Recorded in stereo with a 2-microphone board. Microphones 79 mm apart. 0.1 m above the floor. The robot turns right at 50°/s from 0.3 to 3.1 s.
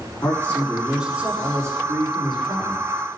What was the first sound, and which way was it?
A man speaking, 150° left.